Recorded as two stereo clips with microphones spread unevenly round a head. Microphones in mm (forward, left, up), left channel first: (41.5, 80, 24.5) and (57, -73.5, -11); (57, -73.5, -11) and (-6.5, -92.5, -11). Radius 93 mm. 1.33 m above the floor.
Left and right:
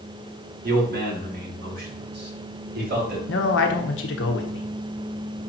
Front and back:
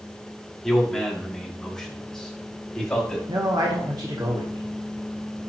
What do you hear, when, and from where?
0.6 s a man speaking: 65° right, 3 m
3.3 s a man speaking: 125° left, 1.2 m